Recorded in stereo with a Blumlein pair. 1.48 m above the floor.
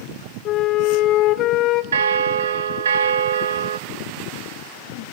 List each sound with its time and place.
0.5 s a flute: 35° left, 1.0 m
1.9 s a bell: 65° right, 0.9 m